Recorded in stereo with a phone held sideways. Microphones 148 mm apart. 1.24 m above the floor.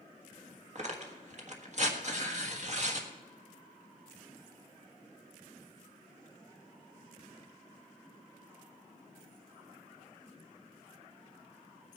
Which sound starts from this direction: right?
Tearing paper, at 0.8 s.